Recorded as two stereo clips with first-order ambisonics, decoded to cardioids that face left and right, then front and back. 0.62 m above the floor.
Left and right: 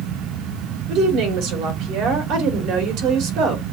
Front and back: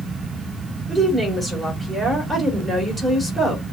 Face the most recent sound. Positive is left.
turn(degrees=-100)